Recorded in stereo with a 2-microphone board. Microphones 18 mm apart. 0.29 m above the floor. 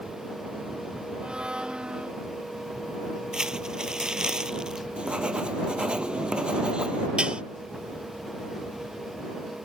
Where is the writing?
65° right (ahead or behind).